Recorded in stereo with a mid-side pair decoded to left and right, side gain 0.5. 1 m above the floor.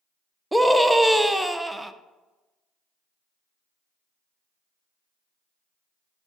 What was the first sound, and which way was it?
A scream, 5° right.